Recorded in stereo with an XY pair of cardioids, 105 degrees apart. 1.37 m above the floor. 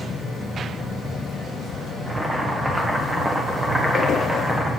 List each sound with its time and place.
2.1 s boiling: 25° right, 1.4 m